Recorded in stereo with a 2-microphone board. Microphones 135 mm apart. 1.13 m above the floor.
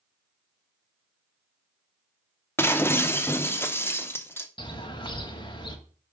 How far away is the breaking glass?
About 0.6 m.